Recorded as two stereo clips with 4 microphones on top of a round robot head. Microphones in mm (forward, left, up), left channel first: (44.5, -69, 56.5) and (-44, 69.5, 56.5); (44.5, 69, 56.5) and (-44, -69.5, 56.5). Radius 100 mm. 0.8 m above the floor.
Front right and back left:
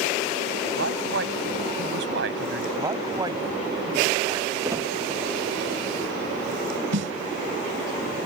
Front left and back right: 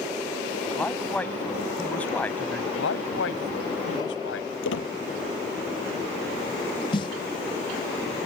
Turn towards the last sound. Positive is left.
turn(degrees=120)